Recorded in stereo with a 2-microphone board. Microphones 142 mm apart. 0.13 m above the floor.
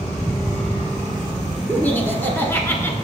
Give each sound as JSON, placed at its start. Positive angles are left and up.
{"t": 1.7, "sound": "laughter", "side_deg": 10, "distance_m": 1.1}